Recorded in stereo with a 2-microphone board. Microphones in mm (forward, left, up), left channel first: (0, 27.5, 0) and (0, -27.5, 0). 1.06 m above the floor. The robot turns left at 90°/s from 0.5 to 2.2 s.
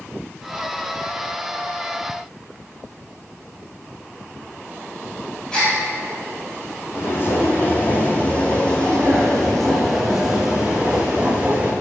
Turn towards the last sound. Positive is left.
turn(degrees=-20)  # may be behind; listen again after turning